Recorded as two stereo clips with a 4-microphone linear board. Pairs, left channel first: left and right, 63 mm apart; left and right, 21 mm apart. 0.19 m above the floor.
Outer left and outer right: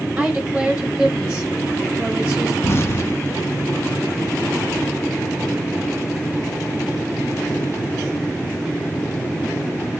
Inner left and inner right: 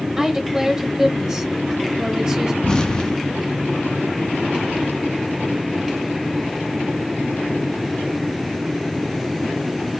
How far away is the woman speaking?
About 1.0 m.